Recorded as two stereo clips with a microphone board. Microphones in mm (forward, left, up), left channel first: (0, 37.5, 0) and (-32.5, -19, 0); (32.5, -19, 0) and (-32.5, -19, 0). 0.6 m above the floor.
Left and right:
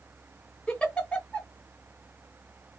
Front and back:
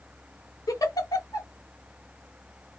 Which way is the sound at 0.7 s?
10° right.